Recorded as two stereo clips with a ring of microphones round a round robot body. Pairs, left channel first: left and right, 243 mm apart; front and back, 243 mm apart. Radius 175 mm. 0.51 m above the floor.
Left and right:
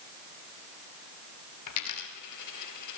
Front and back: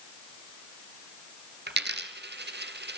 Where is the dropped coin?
130° left, 2.5 m.